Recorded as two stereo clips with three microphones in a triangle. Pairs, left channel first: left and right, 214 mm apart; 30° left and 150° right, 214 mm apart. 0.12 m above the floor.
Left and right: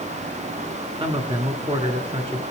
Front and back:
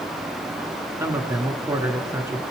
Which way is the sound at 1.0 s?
95° right.